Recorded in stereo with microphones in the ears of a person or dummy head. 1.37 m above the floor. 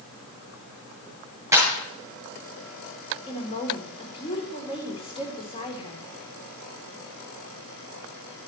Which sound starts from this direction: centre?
A clap, at 1.5 s.